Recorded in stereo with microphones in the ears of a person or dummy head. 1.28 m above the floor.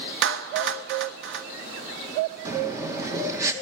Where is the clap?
70° right (ahead or behind), 1.1 m.